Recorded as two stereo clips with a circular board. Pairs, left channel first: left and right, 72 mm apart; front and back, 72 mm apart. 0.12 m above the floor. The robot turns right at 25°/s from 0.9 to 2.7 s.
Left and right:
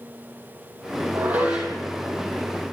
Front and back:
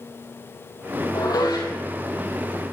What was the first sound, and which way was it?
Dishes clattering, 25° right.